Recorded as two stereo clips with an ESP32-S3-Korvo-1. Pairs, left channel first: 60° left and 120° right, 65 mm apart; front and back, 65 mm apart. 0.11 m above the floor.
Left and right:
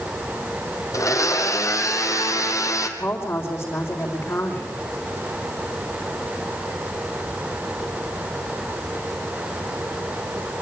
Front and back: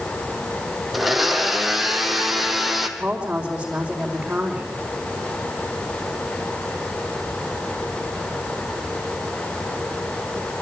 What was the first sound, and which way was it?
A blender, 90° left.